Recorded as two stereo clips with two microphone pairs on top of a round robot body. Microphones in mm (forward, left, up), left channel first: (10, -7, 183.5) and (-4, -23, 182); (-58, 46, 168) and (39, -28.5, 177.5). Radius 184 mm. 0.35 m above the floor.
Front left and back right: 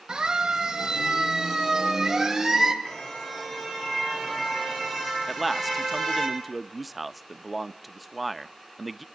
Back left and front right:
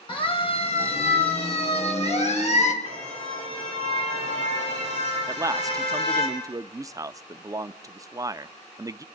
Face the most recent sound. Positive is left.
turn(degrees=-55)